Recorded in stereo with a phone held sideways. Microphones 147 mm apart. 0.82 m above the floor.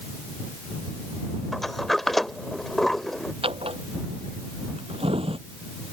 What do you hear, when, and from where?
1.5 s a sliding door: centre (ahead or behind)
3.4 s a drawer: 40° right (ahead or behind)